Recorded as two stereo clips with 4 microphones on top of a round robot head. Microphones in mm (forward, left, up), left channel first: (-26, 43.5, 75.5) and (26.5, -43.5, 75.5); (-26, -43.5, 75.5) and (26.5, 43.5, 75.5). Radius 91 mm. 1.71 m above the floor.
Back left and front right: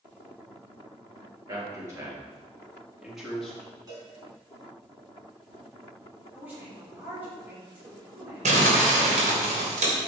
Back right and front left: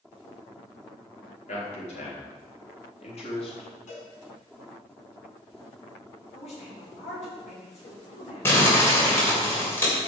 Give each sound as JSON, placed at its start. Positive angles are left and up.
{"t": 1.5, "sound": "a man speaking", "azimuth_deg": -120, "distance_m": 4.5}
{"t": 3.9, "sound": "a cowbell", "azimuth_deg": -115, "distance_m": 5.0}
{"t": 6.3, "sound": "a woman speaking", "azimuth_deg": -135, "distance_m": 6.0}
{"t": 8.4, "sound": "crumpling", "azimuth_deg": -55, "distance_m": 3.0}